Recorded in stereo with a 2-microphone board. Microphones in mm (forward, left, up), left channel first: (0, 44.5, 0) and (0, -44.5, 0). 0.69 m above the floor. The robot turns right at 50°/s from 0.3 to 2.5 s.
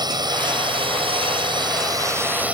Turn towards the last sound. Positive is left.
turn(degrees=-15)